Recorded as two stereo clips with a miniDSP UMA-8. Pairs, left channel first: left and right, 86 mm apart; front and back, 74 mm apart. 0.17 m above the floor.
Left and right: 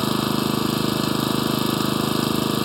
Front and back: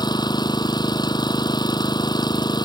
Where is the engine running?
Straight ahead.